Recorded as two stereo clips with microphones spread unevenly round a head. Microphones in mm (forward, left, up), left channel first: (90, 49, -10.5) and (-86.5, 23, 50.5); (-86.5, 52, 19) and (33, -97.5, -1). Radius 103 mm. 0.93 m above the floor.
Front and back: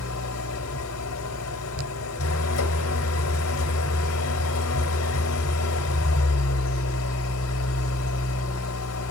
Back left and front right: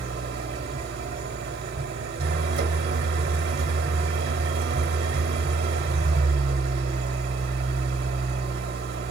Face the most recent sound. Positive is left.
turn(degrees=-10)